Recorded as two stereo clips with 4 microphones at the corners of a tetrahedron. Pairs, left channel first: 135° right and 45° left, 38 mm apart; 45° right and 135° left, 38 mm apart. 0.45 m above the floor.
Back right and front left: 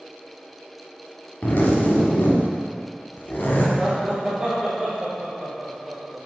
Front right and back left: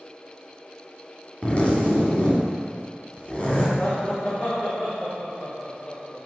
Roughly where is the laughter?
Ahead.